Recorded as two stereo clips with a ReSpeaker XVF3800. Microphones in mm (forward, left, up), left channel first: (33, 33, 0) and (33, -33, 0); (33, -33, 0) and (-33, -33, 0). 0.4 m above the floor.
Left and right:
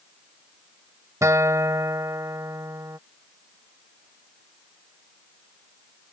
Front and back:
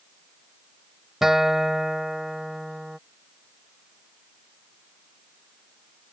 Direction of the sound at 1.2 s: 95° right.